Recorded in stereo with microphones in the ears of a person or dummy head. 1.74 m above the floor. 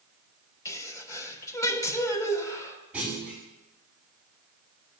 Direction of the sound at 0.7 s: 20° left (ahead or behind).